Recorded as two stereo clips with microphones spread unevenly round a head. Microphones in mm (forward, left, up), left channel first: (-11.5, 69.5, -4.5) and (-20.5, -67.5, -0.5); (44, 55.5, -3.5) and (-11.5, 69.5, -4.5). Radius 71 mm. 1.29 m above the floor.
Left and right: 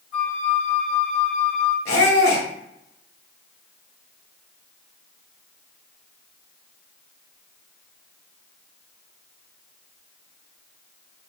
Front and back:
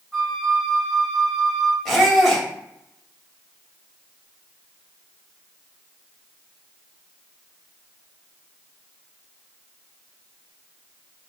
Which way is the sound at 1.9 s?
80° left.